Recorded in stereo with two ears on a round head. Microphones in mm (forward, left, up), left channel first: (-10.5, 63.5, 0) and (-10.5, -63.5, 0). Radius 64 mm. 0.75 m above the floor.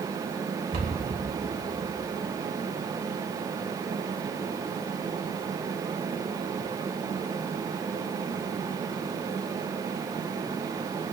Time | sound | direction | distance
0.7 | a cupboard door | 70° right (ahead or behind) | 2.5 m